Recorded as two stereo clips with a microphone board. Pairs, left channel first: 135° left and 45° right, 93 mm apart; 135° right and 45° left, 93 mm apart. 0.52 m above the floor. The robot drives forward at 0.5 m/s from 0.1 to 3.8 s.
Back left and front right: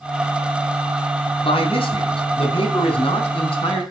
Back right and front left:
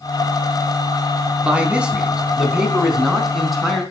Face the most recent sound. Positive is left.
turn(degrees=135)